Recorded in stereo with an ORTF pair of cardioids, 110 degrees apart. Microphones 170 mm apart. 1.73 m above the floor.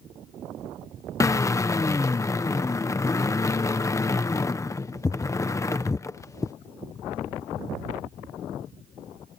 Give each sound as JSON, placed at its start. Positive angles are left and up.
{"t": 1.2, "sound": "a drill", "azimuth_deg": 20}